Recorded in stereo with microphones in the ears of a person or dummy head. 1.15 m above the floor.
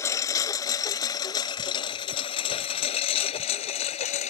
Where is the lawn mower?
20° left (ahead or behind); by 4.3 s 40° left (ahead or behind).